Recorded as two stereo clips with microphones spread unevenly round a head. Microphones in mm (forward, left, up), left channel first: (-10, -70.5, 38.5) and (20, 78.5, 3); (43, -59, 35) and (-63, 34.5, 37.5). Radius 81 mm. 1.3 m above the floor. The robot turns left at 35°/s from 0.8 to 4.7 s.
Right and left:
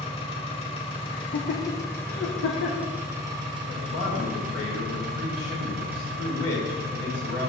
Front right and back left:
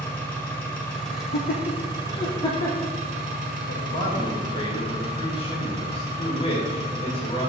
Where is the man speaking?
60° right, 1.9 m; by 7.5 s 95° right, 1.9 m.